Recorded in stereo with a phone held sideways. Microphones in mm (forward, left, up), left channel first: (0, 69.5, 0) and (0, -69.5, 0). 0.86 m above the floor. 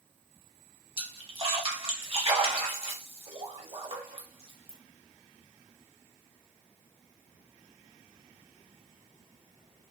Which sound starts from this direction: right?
A splash, at 1.0 s.